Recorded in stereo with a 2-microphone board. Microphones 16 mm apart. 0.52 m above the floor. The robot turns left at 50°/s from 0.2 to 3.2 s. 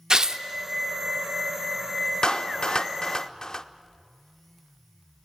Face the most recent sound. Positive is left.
turn(degrees=40)  # may be behind; listen again after turning